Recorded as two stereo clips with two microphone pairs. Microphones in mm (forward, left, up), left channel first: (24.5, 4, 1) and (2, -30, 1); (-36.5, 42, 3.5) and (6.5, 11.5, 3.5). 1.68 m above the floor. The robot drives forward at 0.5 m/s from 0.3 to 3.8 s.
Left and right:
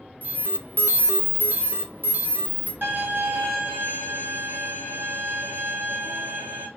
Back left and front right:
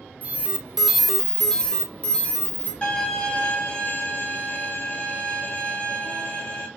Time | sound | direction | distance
0.2 | an alarm | 95° right | 0.6 m
2.8 | a violin | 145° right | 2 m